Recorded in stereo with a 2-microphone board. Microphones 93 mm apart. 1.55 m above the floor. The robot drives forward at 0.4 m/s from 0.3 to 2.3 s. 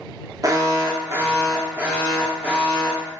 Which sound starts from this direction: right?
An alarm, at 0.4 s.